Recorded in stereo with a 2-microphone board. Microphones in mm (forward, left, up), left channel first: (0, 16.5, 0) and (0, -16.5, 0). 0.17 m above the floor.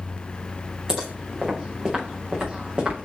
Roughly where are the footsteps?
Right.